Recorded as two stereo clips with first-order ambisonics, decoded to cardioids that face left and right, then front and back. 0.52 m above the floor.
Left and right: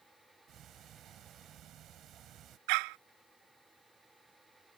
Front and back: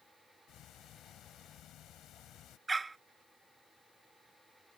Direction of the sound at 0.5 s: 45° right.